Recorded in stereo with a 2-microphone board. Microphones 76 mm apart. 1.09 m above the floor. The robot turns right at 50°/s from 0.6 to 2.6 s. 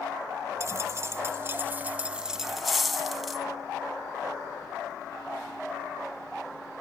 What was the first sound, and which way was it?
A dropped coin, 100° right.